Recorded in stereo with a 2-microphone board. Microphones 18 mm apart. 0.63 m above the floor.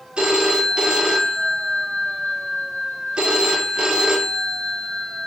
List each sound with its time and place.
0.2 s a phone ringing: 60° right (ahead or behind), 1.1 m